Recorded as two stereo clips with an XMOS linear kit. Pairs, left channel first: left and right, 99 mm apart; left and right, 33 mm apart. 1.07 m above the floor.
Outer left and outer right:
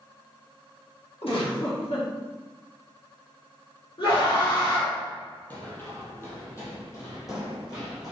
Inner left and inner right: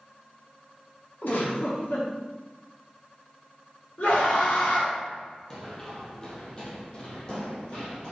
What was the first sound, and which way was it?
A giggle, 70° left (ahead or behind).